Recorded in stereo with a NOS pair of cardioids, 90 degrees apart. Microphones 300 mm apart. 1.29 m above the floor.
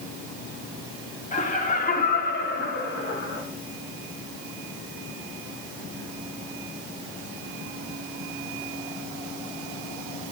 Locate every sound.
1.3 s laughter: 25° left, 3.5 m; by 3.4 s 45° left, 3.5 m